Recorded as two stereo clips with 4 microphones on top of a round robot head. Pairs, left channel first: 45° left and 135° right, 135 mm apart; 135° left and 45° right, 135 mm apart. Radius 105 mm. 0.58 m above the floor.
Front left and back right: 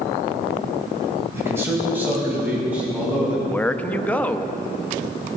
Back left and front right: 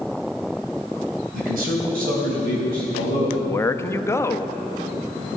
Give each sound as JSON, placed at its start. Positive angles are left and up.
{"t": 1.3, "sound": "a man speaking", "azimuth_deg": -60, "distance_m": 3.0}
{"t": 3.4, "sound": "a man speaking", "azimuth_deg": 105, "distance_m": 0.7}